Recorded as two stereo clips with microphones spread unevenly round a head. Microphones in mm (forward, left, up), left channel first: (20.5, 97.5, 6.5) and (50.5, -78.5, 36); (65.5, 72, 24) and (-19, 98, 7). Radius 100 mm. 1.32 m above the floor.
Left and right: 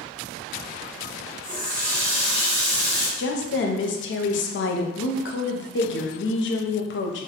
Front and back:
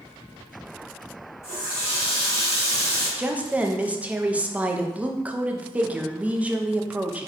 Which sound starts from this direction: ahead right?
A running tap, at 1.4 s.